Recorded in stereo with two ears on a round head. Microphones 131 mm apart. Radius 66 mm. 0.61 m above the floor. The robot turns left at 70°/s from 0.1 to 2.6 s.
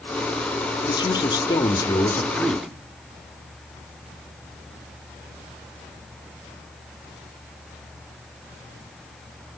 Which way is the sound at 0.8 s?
120° left.